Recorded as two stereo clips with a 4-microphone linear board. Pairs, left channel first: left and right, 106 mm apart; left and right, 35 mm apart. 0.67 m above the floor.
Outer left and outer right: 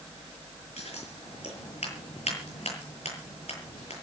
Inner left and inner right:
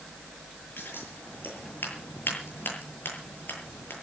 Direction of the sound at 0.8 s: 85° left.